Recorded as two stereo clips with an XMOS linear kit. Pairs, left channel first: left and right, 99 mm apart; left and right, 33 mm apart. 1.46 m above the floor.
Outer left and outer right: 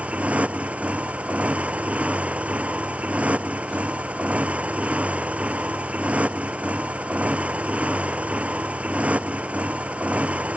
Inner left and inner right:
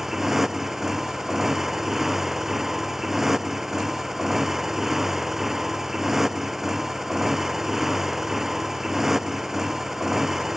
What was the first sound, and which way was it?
A motorcycle, 15° right (ahead or behind).